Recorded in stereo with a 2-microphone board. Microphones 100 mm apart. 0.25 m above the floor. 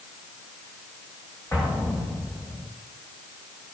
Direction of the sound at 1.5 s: 25° left (ahead or behind).